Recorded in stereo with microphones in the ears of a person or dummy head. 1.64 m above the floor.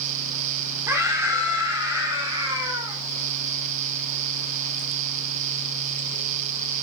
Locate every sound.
0.9 s a scream: 20° right (ahead or behind), 5.5 m; by 3.0 s 30° right (ahead or behind), 6.5 m